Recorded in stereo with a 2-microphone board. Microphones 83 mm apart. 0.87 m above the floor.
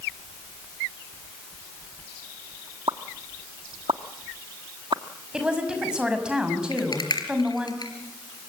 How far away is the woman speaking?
About 6 m.